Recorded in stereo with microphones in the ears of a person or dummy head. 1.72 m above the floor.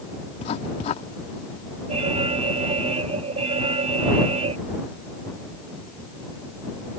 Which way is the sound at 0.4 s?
40° left (ahead or behind).